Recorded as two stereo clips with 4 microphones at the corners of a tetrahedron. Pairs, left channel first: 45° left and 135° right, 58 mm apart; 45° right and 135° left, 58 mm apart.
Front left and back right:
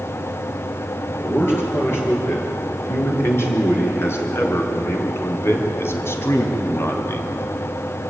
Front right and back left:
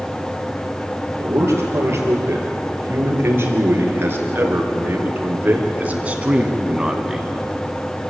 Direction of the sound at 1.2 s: 90° left.